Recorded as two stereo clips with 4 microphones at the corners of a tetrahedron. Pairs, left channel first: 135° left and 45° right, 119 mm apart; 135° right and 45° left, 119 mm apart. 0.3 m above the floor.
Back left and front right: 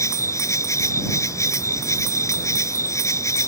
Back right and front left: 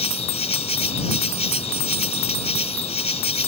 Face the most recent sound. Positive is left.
turn(degrees=-160)